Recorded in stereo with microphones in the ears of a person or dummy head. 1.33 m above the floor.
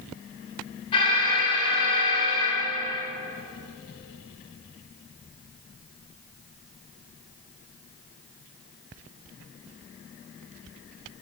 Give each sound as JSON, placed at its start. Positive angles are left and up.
{"t": 0.9, "sound": "an alarm", "side_deg": 25, "distance_m": 7.5}